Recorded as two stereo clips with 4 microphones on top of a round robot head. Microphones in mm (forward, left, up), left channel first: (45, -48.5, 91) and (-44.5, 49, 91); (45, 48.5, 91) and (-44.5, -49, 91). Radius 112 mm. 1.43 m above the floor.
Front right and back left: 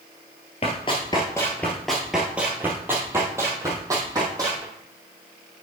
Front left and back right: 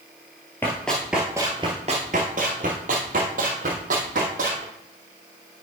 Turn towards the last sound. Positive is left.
turn(degrees=-160)